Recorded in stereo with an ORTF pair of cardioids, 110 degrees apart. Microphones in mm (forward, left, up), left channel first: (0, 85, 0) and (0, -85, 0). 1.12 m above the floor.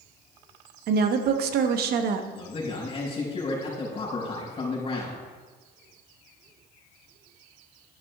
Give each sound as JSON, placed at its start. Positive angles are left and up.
{"t": 0.9, "sound": "a woman speaking", "azimuth_deg": -65, "distance_m": 1.1}
{"t": 2.3, "sound": "a man speaking", "azimuth_deg": 35, "distance_m": 5.0}